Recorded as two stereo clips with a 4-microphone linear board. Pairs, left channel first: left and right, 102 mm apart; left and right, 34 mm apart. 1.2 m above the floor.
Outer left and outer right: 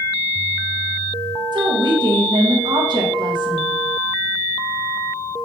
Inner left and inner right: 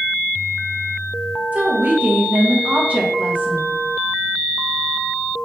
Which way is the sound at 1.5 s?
45° right (ahead or behind).